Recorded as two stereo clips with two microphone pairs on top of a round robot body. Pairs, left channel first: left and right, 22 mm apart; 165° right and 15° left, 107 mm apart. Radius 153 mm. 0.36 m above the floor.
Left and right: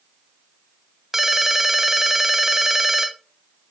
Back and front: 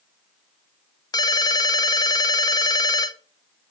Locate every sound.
1.1 s a ringtone: 165° right, 1.0 m